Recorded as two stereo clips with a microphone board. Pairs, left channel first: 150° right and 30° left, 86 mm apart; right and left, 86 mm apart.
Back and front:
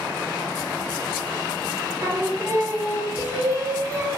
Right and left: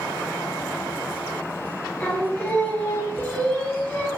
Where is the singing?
20° right, 0.6 m.